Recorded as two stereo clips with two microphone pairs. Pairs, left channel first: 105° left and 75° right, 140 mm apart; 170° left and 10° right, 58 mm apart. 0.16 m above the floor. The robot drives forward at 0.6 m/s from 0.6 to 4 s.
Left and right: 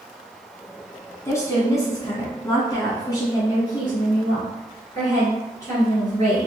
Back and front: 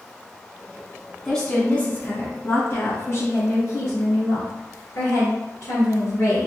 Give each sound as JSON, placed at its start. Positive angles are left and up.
{"t": 1.2, "sound": "a woman speaking", "azimuth_deg": 100, "distance_m": 1.3}